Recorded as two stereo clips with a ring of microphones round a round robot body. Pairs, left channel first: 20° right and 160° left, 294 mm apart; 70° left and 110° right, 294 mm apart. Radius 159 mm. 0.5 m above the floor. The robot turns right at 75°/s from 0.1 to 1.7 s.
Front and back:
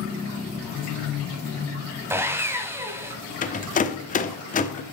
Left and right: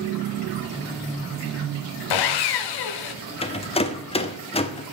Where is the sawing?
75° left, 0.6 m.